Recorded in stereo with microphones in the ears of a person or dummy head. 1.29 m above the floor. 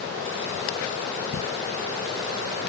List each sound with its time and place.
Only background noise.